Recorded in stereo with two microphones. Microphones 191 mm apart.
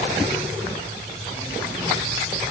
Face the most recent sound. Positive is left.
No sound to turn to.